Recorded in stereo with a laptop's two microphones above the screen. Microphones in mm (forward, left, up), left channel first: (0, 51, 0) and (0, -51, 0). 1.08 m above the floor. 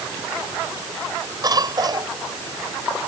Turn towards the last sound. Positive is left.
turn(degrees=-45)  # may be behind; listen again after turning